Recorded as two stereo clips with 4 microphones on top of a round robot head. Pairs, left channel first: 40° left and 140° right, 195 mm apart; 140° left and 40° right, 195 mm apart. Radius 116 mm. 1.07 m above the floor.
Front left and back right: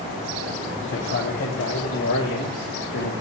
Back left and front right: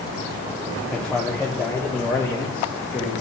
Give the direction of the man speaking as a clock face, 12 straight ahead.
10 o'clock.